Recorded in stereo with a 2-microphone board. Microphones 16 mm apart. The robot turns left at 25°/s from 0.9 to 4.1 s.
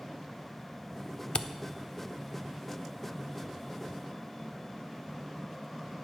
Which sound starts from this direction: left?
A camera shutter, at 1.4 s.